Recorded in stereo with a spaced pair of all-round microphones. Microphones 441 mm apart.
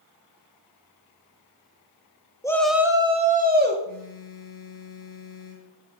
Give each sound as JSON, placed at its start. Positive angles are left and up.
{"t": 2.4, "sound": "a shout", "side_deg": 10, "distance_m": 1.2}
{"t": 3.9, "sound": "a phone buzzing", "side_deg": 50, "distance_m": 4.0}